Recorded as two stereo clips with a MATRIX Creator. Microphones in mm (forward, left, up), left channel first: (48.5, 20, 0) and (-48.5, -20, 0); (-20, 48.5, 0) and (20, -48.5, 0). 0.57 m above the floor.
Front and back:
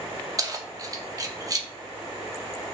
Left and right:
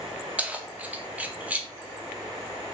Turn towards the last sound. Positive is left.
turn(degrees=-135)